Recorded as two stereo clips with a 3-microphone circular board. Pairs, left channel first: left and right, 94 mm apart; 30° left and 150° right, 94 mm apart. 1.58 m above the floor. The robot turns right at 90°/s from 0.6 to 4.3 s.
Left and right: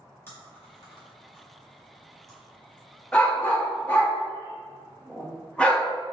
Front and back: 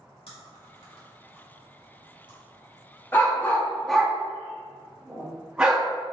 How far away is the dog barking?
About 0.9 m.